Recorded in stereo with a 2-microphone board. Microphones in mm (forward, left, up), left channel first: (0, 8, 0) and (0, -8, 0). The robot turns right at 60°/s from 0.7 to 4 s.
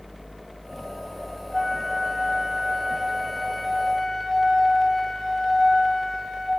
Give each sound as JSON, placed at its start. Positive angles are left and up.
{"t": 1.5, "sound": "a flute", "side_deg": 0, "distance_m": 1.1}